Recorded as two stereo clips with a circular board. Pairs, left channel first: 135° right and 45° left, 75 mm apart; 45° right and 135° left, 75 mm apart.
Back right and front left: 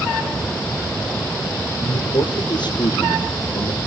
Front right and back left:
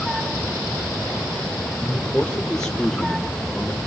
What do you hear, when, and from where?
1.8 s a man speaking: 125° right, 5 m; by 3.8 s 130° right, 3.5 m